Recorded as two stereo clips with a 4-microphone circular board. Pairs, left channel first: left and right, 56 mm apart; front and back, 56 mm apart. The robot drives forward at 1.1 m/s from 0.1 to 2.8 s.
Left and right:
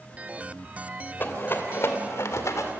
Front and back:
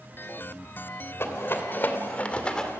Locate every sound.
1.2 s a rattle: 40° left, 2.5 m; by 2.7 s 80° left, 1.9 m